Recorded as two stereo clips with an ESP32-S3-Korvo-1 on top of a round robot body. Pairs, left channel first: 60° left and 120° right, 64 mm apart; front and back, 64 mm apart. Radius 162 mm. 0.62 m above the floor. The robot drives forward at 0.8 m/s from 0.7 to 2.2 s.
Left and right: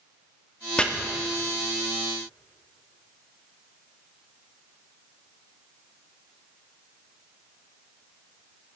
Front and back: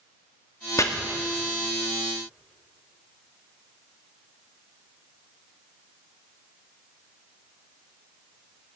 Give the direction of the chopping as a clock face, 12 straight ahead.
12 o'clock.